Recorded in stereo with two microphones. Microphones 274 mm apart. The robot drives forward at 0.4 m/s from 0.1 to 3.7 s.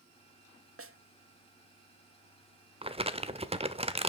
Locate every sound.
0.8 s a snare drum: 60° right (ahead or behind), 0.7 m; by 1.0 s 55° right (ahead or behind), 0.7 m
2.8 s crumpling: 20° right (ahead or behind), 0.7 m; by 4.1 s 25° right (ahead or behind), 0.7 m